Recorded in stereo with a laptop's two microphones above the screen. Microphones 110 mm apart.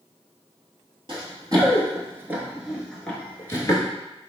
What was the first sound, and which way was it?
Running footsteps, 45° right (ahead or behind).